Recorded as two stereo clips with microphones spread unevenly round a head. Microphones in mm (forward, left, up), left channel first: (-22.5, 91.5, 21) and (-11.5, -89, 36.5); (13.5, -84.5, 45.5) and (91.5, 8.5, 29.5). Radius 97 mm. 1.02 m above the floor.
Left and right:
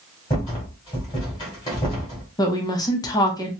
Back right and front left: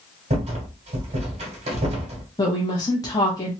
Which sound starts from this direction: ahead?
A rattle, at 0.3 s.